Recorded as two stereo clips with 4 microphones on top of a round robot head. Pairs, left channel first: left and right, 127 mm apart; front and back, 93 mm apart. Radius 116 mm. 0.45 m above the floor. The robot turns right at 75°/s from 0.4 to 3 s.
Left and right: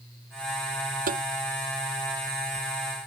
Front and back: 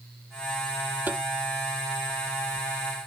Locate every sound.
1.1 s tapping: 105° right; by 1.2 s 90° right